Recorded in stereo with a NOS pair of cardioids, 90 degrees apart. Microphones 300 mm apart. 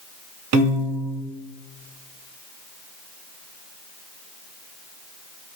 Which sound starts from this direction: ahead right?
A piano, at 0.5 s.